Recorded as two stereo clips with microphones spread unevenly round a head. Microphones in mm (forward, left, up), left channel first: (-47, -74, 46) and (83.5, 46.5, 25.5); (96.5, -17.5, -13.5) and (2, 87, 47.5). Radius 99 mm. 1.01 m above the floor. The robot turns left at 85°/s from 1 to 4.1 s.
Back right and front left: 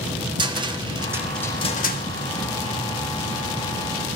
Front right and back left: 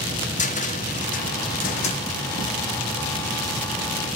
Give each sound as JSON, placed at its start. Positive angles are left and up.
{"t": 0.4, "sound": "a cupboard door", "azimuth_deg": -20, "distance_m": 1.6}